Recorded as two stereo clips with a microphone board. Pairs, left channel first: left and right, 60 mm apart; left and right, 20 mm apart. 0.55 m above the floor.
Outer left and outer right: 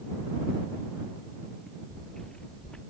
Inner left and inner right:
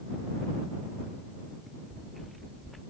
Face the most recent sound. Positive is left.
turn(degrees=15)  # may be behind; listen again after turning